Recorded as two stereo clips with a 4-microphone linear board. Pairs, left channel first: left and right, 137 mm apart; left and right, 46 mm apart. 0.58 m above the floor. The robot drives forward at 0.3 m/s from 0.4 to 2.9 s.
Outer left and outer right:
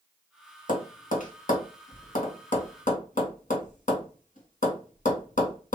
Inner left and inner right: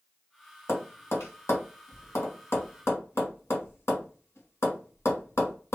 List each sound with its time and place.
0.7 s tapping: 70° left (ahead or behind), 1.3 m; by 5.8 s 65° left (ahead or behind), 1.3 m